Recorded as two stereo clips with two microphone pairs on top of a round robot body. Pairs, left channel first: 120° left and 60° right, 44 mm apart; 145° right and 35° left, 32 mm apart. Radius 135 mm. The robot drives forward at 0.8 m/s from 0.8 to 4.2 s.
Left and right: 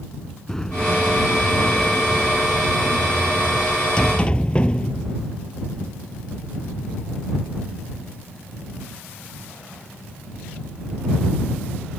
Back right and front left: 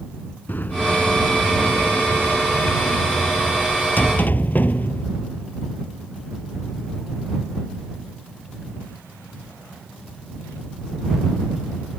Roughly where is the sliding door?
Behind.